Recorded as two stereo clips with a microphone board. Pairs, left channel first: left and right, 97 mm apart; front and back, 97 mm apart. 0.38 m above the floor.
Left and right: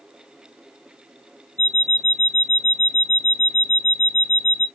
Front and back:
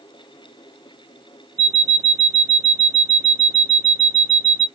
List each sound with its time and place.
1.6 s an alarm clock: 160° left, 0.9 m